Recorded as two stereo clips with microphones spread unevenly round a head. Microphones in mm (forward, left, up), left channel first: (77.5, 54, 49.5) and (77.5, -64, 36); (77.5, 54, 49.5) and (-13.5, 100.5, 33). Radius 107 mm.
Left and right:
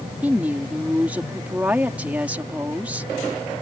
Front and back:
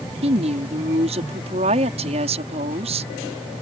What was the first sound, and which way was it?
A woman speaking, 175° right.